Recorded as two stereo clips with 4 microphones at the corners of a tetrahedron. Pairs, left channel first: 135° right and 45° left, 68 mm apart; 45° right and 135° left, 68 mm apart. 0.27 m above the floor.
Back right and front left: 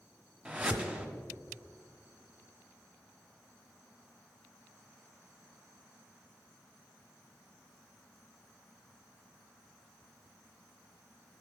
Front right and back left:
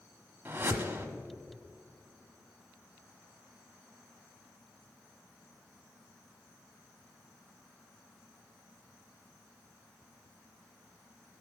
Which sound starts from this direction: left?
A whoosh, at 0.5 s.